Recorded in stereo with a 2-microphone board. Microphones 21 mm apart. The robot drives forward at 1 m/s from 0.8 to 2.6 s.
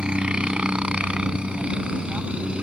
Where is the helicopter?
60° right (ahead or behind); by 2.6 s 65° right (ahead or behind).